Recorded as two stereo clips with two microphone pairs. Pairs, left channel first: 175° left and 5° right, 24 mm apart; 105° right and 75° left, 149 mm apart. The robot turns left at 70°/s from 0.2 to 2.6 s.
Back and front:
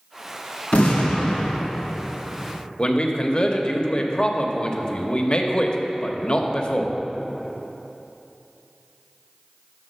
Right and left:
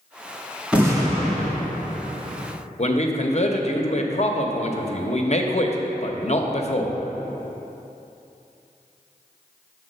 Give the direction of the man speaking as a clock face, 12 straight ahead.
5 o'clock.